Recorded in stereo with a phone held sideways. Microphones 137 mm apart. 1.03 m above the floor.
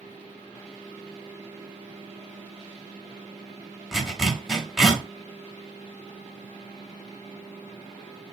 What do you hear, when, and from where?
3.9 s a zipper: centre (ahead or behind), 0.9 m